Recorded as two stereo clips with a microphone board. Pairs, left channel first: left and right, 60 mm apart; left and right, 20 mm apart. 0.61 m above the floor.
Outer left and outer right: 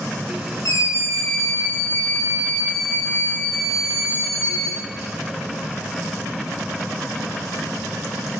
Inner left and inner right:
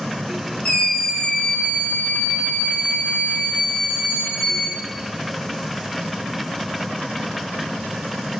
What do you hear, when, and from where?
0.7 s a scream: 80° left, 6.5 m